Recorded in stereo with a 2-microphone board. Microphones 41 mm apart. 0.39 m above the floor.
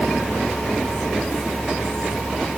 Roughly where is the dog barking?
No dog barking in this recording.